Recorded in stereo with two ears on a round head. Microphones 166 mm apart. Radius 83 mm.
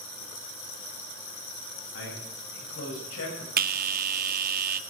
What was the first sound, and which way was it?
A man speaking, 75° left (ahead or behind).